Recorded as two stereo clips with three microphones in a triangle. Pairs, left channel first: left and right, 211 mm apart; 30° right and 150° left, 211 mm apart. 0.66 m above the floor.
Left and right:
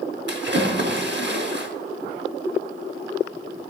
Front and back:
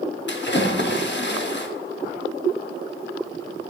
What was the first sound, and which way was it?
A splash, 60° right.